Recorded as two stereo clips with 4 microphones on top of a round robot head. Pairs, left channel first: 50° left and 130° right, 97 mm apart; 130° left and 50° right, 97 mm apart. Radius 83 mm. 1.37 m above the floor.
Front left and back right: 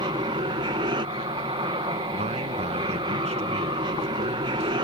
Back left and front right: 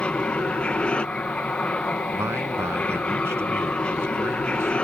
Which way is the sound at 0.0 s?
155° right.